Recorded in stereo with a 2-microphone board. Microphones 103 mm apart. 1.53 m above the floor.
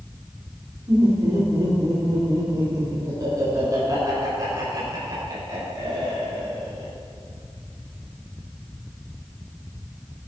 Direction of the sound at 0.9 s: 35° right (ahead or behind).